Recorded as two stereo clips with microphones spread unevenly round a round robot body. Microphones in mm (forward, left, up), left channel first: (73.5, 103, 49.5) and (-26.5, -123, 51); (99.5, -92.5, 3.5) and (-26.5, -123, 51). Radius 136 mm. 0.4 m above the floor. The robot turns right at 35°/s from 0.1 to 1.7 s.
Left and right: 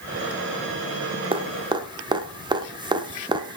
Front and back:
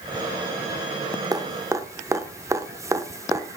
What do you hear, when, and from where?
1.3 s dripping: 90° right, 1.0 m; by 3.6 s 75° right, 1.0 m